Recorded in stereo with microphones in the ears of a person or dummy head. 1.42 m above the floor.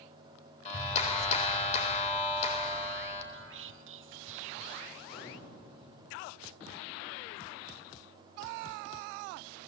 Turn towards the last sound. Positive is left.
turn(degrees=55)  # may be behind; listen again after turning